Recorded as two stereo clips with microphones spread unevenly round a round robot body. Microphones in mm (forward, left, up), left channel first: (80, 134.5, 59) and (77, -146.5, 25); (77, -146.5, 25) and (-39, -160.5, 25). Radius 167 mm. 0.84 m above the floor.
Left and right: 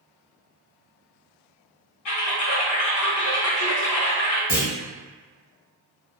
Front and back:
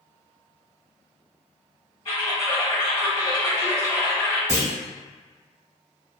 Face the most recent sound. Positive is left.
turn(degrees=-155)